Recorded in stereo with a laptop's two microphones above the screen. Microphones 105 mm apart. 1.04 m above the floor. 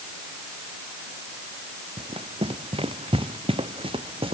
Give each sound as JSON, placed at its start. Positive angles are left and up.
{"t": 2.0, "sound": "running footsteps", "side_deg": -70}